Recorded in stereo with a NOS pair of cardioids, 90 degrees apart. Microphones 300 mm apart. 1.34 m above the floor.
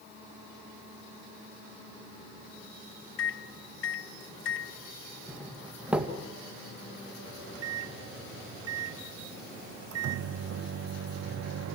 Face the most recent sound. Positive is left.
turn(degrees=-55)